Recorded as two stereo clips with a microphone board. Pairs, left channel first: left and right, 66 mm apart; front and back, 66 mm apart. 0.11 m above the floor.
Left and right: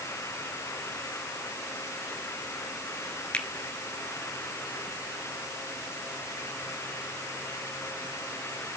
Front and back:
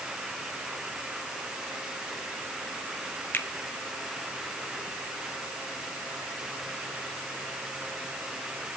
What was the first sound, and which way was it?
A finger snap, 30° left.